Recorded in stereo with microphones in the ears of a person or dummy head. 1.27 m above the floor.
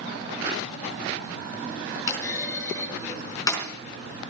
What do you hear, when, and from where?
2.1 s a clunk: 15° left (ahead or behind), 4 m